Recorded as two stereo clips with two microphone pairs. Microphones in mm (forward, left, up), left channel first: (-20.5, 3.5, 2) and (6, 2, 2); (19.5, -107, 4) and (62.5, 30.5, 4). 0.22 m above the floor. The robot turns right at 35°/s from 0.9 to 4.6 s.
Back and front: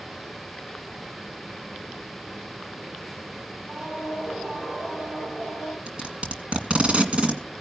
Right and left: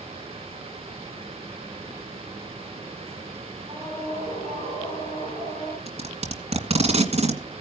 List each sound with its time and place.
3.7 s a scream: 20° left, 8.5 m; by 5.8 s 50° left, 8.5 m
5.9 s tape being pulled: 40° left, 2 m